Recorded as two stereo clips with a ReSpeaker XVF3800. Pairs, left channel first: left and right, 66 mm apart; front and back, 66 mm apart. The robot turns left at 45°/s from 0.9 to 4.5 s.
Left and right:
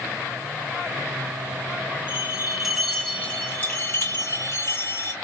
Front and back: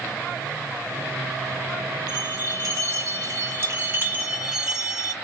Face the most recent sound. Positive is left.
turn(degrees=110)